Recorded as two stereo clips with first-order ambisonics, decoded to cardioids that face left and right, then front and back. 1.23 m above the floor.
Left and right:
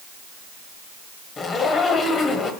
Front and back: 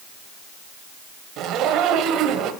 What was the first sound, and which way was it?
A zipper, 150° left.